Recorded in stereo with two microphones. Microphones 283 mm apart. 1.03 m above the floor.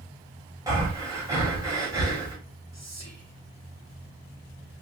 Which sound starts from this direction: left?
Whispering, at 2.7 s.